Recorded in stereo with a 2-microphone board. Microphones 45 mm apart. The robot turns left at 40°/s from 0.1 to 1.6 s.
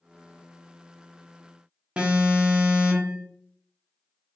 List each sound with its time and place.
2.0 s an alarm: 25° right (ahead or behind), 0.8 m